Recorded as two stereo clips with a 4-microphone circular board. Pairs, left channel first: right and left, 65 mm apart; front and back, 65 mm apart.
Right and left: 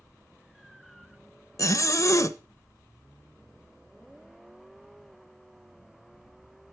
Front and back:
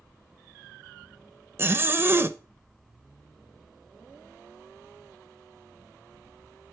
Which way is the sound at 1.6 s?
125° right.